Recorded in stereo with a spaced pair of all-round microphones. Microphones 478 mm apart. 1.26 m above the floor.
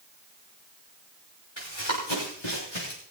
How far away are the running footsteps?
About 6 m.